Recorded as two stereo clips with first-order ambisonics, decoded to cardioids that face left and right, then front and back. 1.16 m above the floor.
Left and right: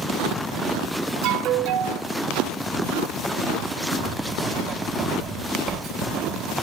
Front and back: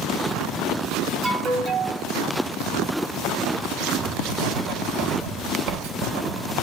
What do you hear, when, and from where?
1.2 s an alarm: 105° right, 2.5 m
3.9 s writing: 150° right, 3 m